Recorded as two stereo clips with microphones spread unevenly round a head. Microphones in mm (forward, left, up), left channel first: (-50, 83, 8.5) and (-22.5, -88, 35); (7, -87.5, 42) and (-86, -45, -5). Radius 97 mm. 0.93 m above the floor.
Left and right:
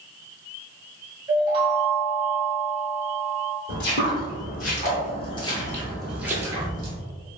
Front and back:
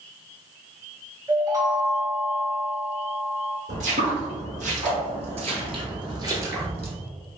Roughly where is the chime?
Behind right.